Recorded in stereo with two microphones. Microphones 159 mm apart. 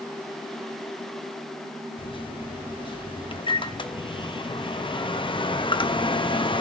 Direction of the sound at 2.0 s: 30° left (ahead or behind).